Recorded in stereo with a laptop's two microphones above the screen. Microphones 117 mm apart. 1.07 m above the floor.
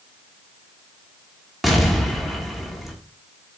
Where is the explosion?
Centre (ahead or behind), 1.4 m.